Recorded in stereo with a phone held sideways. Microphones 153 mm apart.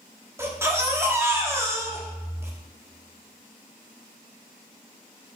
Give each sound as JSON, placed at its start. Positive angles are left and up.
{"t": 0.4, "sound": "a baby crying", "side_deg": -15, "distance_m": 1.1}